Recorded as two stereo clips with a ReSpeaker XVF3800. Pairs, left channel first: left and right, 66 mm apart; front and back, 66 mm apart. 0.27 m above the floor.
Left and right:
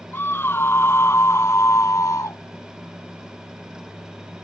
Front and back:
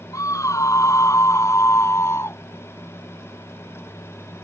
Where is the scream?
35° left; by 2.4 s 50° left.